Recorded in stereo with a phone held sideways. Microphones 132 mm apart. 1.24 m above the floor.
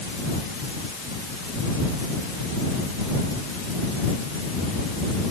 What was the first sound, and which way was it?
Only background noise.